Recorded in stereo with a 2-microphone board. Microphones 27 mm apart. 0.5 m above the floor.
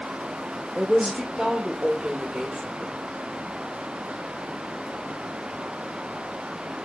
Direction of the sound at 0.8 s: 35° right (ahead or behind).